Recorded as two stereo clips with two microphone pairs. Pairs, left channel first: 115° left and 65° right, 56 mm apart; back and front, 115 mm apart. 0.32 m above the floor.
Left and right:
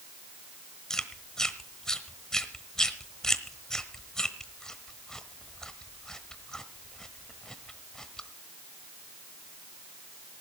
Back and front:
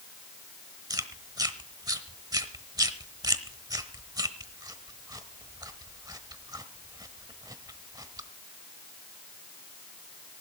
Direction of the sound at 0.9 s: 40° left.